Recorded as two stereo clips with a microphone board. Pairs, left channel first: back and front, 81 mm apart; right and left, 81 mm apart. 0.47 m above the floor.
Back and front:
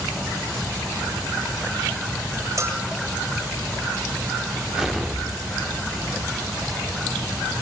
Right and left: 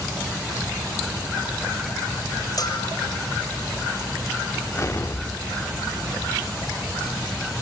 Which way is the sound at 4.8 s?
85° right.